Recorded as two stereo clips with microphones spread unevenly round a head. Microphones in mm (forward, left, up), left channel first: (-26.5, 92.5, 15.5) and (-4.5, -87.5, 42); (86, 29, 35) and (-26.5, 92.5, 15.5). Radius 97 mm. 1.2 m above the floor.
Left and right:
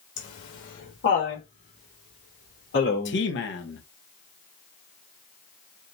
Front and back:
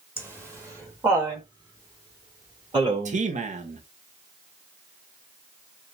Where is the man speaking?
120° left, 1.2 m.